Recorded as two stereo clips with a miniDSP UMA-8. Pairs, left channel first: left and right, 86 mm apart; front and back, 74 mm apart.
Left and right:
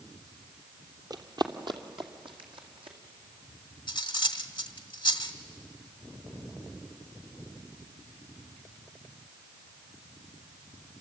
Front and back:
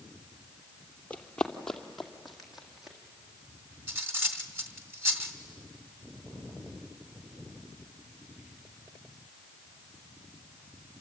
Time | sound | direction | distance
1.1 | running footsteps | 65° right | 1.6 m
3.9 | cutlery clinking | 120° left | 1.6 m